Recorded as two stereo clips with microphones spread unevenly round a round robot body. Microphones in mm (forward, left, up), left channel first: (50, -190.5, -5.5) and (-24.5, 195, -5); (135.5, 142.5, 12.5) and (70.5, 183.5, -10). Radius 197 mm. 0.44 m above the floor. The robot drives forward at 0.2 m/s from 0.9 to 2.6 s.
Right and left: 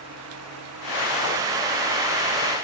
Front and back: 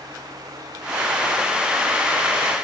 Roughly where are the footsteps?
No footsteps in this recording.